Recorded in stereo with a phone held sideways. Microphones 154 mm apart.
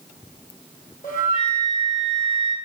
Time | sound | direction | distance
1.0 | a flute | 70° left (ahead or behind) | 3 m